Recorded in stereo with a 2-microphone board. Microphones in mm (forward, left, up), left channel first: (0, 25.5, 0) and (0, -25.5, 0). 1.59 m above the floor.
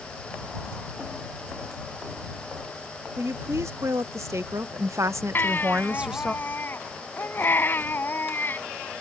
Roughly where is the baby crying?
Left.